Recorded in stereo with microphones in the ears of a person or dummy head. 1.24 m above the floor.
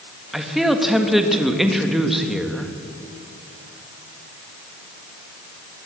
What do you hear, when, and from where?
0.3 s a man speaking: centre (ahead or behind), 1.8 m